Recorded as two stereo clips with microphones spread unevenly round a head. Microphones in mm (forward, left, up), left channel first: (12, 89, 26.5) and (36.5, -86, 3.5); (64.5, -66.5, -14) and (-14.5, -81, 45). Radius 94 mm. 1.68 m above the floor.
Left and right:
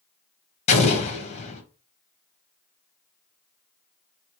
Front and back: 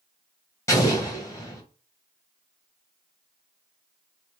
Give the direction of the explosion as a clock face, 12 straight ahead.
8 o'clock.